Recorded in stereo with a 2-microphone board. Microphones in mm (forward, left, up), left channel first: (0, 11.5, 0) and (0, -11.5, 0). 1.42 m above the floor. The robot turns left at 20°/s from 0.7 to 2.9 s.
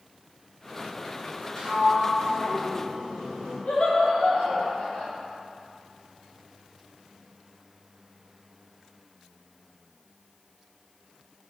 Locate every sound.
1.6 s a sliding door: 25° left (ahead or behind), 1.5 m; by 3.6 s 45° left (ahead or behind), 1.5 m
3.7 s laughter: 70° left (ahead or behind), 1.2 m